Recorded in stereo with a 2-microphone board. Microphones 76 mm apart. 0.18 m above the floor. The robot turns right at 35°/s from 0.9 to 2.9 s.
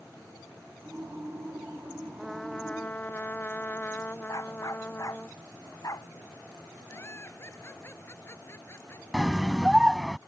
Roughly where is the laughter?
Left.